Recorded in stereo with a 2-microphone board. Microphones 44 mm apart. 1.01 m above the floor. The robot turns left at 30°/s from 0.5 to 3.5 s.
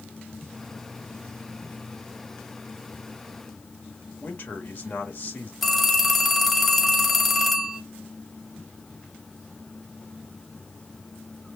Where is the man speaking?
50° left (ahead or behind), 1.5 m.